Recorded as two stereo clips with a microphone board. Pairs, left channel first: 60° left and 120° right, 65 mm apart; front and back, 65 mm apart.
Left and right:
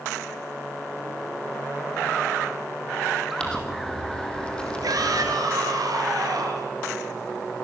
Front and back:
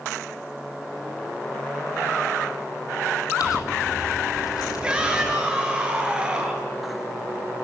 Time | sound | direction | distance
3.4 | crumpling | 15° right | 4 m
4.8 | a shout | 105° right | 7.5 m